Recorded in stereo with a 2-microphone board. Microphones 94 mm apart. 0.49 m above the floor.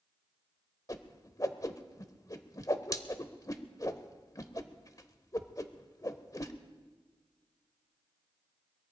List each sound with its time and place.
0.9 s a whoosh: 40° left (ahead or behind), 0.9 m